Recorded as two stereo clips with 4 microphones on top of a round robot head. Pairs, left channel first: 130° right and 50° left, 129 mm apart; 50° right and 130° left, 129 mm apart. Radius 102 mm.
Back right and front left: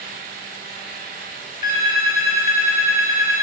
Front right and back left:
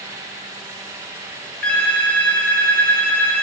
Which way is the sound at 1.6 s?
130° right.